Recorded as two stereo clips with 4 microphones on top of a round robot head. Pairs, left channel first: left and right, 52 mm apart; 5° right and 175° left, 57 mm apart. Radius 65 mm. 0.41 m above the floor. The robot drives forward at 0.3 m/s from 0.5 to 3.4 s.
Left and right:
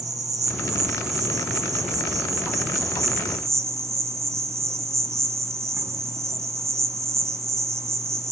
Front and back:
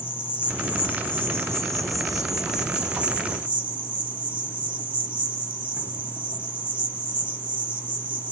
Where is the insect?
70° right, 1.0 m; by 8.3 s 120° right, 1.0 m.